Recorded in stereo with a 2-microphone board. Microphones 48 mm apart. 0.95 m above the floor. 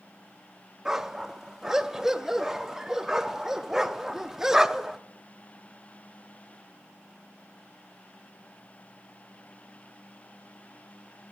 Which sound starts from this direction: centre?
A dog barking, at 0.8 s.